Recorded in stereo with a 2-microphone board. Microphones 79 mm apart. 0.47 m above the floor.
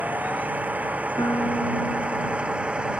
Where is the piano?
45° left (ahead or behind).